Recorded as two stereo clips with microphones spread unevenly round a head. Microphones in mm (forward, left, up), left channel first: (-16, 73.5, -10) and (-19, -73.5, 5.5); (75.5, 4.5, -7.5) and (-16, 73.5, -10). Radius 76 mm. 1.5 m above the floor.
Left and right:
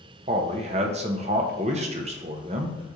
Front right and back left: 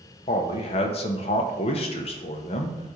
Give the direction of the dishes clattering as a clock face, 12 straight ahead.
No dishes clattering in this recording.